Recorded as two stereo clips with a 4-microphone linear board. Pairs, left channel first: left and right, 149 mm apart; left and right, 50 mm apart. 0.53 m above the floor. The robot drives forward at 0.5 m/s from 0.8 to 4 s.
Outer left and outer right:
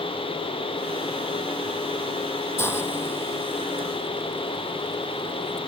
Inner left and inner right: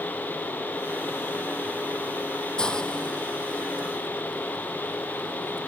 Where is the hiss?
15° left (ahead or behind); by 5.6 s 20° left (ahead or behind).